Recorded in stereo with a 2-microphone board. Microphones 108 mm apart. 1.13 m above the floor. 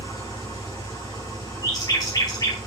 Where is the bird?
40° left (ahead or behind), 2.5 m.